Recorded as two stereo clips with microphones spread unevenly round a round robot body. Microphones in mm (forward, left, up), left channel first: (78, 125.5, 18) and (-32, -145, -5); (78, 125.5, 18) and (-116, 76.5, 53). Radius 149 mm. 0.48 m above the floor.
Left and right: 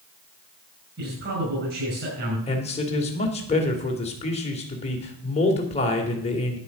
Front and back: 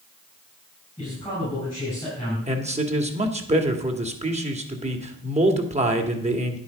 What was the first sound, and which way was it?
A man speaking, 65° right.